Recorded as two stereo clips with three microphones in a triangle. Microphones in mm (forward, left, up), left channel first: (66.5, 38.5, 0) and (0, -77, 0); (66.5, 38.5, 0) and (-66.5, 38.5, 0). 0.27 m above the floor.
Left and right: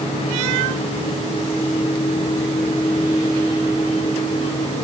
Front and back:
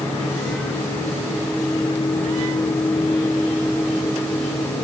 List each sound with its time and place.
Only background noise.